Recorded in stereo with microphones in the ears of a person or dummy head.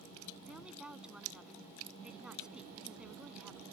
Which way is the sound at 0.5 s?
Centre (ahead or behind).